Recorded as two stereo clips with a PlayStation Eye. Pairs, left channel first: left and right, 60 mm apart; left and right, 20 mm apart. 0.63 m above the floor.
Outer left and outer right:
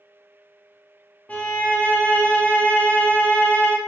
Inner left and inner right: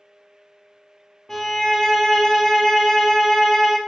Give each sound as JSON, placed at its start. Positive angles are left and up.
{"t": 1.3, "sound": "a violin", "side_deg": 25, "distance_m": 0.7}